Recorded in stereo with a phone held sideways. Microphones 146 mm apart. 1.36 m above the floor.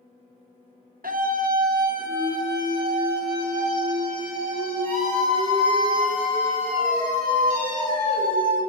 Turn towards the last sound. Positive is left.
turn(degrees=-85)